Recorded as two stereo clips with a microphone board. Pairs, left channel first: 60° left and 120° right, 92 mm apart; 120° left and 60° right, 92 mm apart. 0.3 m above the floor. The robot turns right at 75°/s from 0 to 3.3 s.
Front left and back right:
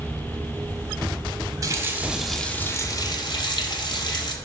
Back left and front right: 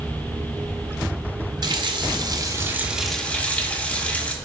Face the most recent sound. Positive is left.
turn(degrees=45)